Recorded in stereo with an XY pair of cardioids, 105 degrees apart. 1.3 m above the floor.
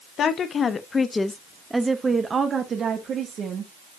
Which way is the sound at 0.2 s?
60° left.